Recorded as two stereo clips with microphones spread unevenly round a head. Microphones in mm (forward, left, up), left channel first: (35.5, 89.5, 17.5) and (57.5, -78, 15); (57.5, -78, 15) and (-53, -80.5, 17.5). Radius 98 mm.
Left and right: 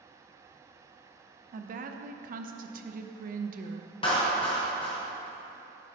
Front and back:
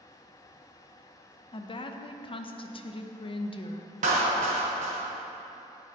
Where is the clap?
165° left, 1.0 m.